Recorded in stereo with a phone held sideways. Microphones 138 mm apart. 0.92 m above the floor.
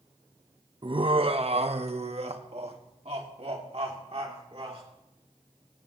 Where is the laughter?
35° right (ahead or behind), 0.7 m; by 4.8 s 50° right (ahead or behind), 3 m.